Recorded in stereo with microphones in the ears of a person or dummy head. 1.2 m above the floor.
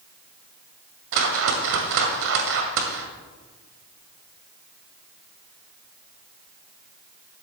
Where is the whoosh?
65° right (ahead or behind), 1.8 m.